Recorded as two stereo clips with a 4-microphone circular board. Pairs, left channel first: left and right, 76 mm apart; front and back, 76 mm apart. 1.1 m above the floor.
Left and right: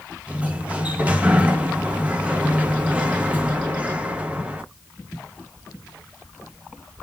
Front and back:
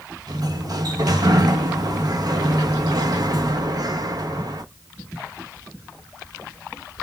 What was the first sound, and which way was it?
A sliding door, 160° right.